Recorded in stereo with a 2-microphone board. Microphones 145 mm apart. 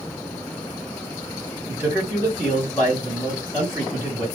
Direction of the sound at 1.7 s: 15° right (ahead or behind).